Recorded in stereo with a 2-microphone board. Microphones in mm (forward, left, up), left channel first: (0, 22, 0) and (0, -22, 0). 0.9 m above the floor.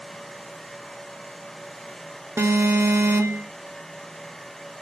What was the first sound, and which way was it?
An alarm, 75° right (ahead or behind).